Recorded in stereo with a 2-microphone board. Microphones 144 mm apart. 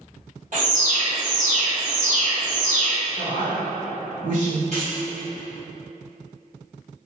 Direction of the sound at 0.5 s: 60° right (ahead or behind).